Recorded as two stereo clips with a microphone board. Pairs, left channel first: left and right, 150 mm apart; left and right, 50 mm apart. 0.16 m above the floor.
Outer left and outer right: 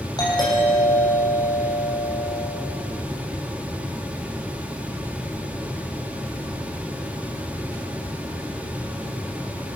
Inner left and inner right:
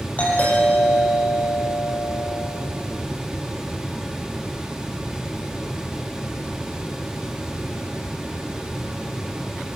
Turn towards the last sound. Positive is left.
turn(degrees=25)  # may be behind; listen again after turning